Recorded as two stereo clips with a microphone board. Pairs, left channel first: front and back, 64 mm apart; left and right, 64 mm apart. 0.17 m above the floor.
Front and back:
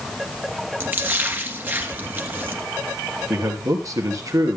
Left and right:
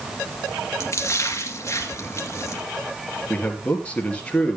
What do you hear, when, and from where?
0.8 s a splash: 125° left, 2 m
3.3 s a man speaking: 155° left, 3 m